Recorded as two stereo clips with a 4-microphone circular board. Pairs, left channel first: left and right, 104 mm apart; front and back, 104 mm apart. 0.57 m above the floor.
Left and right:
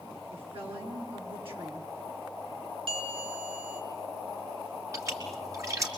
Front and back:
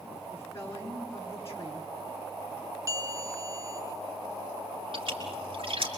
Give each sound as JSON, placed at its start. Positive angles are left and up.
{"t": 0.3, "sound": "a woman speaking", "azimuth_deg": -60, "distance_m": 6.0}
{"t": 2.9, "sound": "a bell", "azimuth_deg": -120, "distance_m": 2.5}
{"t": 4.9, "sound": "a splash", "azimuth_deg": -150, "distance_m": 5.0}